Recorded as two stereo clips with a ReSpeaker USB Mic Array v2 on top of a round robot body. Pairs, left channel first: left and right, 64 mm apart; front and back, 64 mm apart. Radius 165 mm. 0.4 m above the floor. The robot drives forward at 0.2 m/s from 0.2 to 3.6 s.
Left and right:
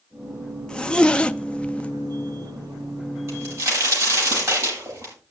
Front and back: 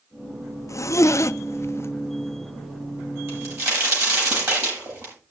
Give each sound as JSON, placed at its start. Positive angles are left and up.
{"t": 0.7, "sound": "a zipper", "azimuth_deg": 15, "distance_m": 0.8}
{"t": 3.3, "sound": "a crack", "azimuth_deg": -140, "distance_m": 9.0}